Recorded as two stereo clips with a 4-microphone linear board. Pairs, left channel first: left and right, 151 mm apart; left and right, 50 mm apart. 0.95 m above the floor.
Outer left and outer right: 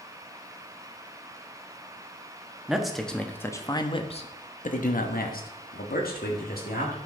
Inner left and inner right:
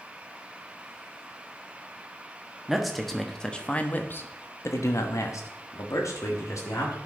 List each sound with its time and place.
2.7 s a man speaking: 5° right (ahead or behind), 1.2 m; by 7.0 s 80° left, 1.9 m